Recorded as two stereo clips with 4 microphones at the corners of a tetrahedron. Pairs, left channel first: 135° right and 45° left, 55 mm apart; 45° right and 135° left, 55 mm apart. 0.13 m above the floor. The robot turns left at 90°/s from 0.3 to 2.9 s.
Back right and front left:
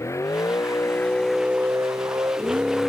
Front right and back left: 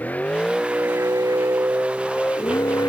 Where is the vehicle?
105° right; by 2.9 s 55° right.